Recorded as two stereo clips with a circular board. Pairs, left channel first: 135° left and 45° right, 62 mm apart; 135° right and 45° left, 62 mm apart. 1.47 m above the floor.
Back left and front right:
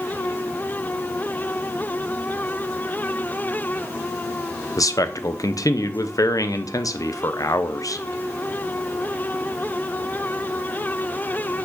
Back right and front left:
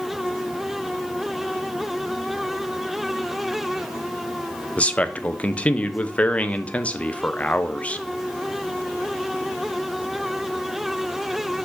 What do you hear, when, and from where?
4.8 s a man speaking: 160° left, 0.7 m